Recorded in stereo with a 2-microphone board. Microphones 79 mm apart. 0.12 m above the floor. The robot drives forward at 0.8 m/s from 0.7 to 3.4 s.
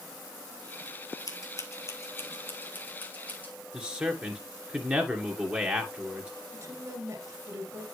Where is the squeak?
I don't hear a squeak.